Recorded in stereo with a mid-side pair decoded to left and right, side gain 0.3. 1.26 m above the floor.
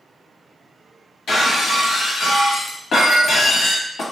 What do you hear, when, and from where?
1.3 s breaking glass: 70° left, 1.0 m